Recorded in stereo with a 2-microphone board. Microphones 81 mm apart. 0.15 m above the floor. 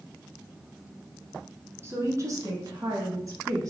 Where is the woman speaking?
30° right (ahead or behind), 1.5 m; by 3.7 s 40° right (ahead or behind), 1.7 m.